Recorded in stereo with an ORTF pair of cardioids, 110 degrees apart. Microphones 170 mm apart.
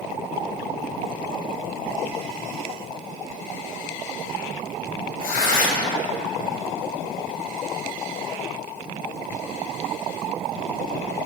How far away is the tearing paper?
About 1.7 m.